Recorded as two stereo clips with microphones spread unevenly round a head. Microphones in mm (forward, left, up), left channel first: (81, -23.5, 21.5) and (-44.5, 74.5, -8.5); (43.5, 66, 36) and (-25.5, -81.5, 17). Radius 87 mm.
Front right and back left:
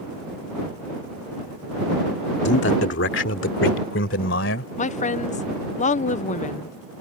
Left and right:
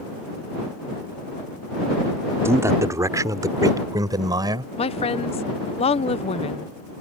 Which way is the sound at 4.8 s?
10° left.